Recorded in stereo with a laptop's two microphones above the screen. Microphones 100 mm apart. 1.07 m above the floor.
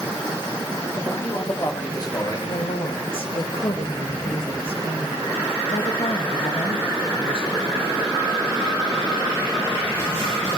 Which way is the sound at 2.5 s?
65° left (ahead or behind).